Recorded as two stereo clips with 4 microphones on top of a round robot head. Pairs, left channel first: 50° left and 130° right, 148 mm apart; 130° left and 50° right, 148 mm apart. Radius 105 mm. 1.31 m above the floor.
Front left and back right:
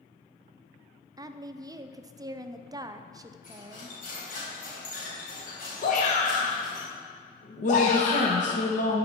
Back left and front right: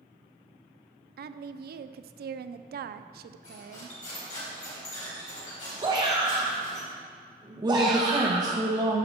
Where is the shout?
10° left, 1.2 m.